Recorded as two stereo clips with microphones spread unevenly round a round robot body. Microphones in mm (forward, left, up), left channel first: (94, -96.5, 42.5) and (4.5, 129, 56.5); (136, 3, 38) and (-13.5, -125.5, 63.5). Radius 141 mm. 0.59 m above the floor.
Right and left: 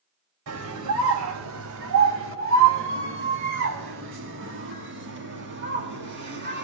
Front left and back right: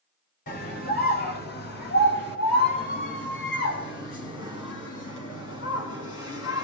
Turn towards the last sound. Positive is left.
turn(degrees=70)